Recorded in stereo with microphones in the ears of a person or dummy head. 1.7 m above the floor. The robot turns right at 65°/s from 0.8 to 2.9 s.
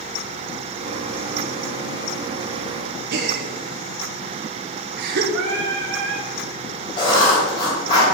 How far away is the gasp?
About 0.9 m.